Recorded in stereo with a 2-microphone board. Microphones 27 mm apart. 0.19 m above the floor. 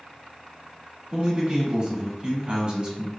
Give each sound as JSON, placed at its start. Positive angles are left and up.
{"t": 1.1, "sound": "a man speaking", "side_deg": -35, "distance_m": 1.3}